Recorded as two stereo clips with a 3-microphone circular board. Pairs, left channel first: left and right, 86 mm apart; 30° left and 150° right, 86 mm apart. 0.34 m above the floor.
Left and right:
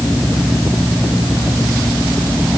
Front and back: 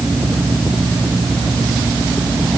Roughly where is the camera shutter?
No camera shutter in this recording.